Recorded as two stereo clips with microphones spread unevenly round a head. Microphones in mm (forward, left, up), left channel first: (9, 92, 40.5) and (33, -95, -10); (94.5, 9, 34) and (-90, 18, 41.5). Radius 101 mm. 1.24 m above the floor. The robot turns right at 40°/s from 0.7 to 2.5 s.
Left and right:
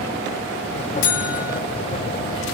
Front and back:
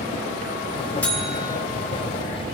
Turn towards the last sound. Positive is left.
turn(degrees=140)